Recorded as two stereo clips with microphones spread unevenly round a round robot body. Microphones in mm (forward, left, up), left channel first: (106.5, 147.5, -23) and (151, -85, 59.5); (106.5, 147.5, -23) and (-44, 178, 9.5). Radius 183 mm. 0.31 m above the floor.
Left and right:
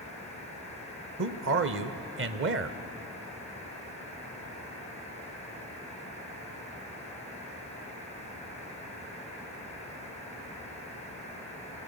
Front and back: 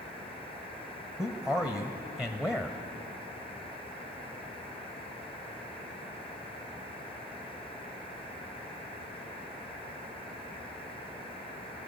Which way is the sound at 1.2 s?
85° right.